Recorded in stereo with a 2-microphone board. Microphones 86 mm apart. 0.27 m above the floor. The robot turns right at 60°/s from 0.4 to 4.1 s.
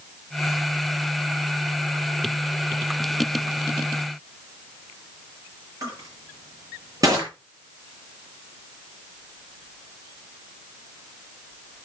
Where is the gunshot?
No gunshot in this recording.